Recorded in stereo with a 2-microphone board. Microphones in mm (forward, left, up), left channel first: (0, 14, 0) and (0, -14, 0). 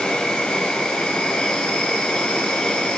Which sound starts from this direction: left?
An insect, at 0.0 s.